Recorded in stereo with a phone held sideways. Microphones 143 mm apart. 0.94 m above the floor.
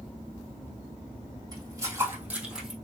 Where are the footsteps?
30° right (ahead or behind), 2.5 m; by 2.8 s centre (ahead or behind), 2.5 m.